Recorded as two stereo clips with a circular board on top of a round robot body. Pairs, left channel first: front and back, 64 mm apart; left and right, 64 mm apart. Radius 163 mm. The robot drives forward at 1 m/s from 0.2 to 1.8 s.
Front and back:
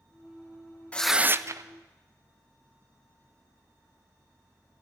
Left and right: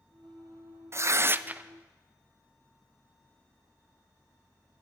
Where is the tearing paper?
60° right, 0.5 m; by 1.7 s 155° right, 0.8 m.